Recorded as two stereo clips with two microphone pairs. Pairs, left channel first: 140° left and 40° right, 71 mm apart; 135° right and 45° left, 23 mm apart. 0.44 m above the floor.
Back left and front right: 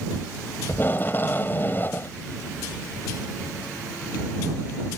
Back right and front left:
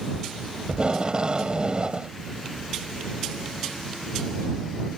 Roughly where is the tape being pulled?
Left.